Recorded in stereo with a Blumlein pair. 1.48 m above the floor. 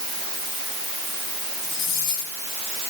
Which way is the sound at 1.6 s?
40° left.